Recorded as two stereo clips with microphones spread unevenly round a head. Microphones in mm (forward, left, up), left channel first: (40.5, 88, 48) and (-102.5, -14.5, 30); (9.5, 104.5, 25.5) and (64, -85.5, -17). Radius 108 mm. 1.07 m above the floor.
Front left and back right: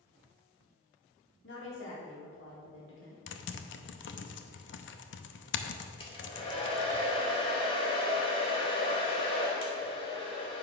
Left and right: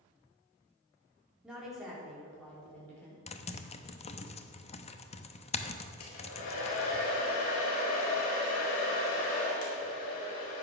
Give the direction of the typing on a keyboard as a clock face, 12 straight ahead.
10 o'clock.